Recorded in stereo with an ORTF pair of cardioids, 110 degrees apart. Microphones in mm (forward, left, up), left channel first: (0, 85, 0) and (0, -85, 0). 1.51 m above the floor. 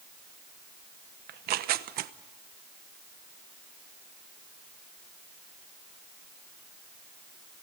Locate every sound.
1.3 s tearing paper: 65° right, 1.0 m